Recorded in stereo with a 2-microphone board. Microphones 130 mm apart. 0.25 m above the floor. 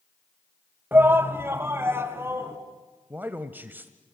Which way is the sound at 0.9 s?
15° right (ahead or behind).